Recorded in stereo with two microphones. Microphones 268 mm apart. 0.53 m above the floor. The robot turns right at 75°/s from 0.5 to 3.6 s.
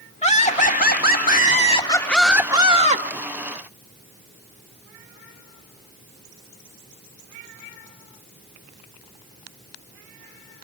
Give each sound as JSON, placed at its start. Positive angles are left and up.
{"t": 0.2, "sound": "laughter", "azimuth_deg": 50, "distance_m": 1.5}